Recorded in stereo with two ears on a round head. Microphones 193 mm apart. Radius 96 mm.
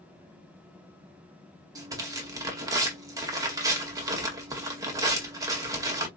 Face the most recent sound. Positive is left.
turn(degrees=-15)  # may be behind; listen again after turning